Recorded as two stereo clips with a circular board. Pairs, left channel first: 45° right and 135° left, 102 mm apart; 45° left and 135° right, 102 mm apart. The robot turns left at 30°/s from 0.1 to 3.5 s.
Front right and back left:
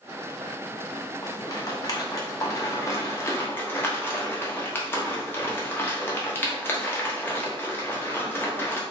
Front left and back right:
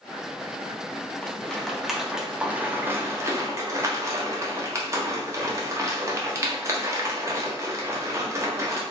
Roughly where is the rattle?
Ahead right.